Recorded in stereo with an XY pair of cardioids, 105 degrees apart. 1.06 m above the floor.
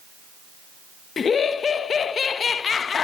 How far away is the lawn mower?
I don't hear a lawn mower.